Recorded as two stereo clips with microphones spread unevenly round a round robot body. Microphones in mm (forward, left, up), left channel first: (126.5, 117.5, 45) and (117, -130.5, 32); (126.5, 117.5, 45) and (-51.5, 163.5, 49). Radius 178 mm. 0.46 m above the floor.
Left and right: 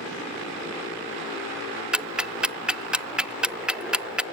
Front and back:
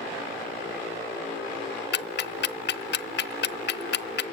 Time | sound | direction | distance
1.9 | ticking | 5° right | 0.6 m